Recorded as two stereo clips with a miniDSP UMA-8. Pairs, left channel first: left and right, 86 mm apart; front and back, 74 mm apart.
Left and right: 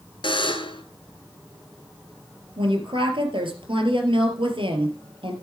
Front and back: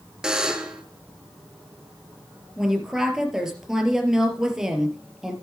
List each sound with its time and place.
0.2 s a buzzer: 100° left, 1.3 m
2.6 s a woman speaking: 95° right, 3.5 m